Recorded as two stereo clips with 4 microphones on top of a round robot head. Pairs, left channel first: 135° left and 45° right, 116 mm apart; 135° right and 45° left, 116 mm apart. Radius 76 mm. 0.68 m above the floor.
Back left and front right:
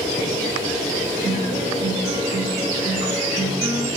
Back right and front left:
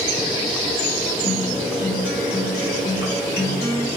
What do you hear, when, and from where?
1.2 s a guitar: 110° right, 2.5 m